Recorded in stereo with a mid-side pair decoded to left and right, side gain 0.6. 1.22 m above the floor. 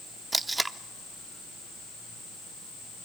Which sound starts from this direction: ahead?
Tape being pulled, at 0.3 s.